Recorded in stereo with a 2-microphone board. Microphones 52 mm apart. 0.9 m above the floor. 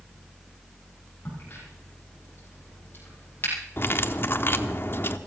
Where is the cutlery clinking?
45° left (ahead or behind), 0.9 m.